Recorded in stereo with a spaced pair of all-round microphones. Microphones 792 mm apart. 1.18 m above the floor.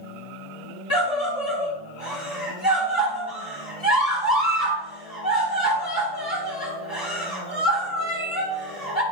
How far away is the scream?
About 3 m.